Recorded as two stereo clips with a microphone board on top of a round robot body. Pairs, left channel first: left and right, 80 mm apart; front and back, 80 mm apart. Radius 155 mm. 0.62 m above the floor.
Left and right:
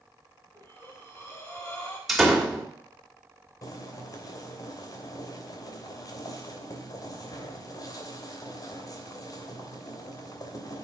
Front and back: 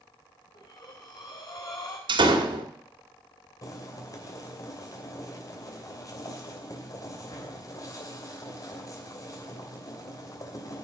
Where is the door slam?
Straight behind, 2.5 m.